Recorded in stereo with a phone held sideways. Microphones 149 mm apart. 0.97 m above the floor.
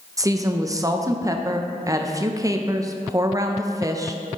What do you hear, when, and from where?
0.2 s a woman speaking: 25° right (ahead or behind), 0.6 m